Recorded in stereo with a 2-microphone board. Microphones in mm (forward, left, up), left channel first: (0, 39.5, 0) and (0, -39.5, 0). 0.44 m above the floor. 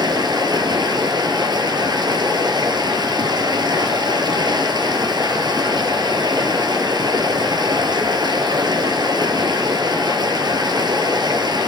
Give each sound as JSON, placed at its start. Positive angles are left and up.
{"t": 0.0, "sound": "running water", "side_deg": -65, "distance_m": 1.3}